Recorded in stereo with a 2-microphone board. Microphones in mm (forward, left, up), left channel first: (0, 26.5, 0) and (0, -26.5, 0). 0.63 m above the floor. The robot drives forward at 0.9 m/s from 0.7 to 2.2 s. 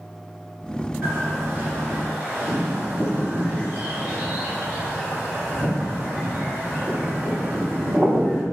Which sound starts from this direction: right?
A bird, at 1.0 s.